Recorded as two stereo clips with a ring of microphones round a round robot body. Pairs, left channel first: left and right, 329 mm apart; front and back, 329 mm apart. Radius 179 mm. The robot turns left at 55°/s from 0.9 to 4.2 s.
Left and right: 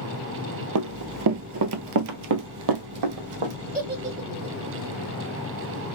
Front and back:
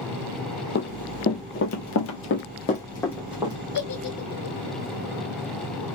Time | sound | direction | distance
0.8 | running footsteps | 60° right | 0.6 m
3.7 | a giggle | 30° right | 1.8 m